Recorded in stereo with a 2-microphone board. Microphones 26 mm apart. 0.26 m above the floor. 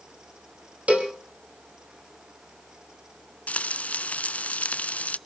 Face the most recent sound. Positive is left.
turn(degrees=70)  # may be behind; listen again after turning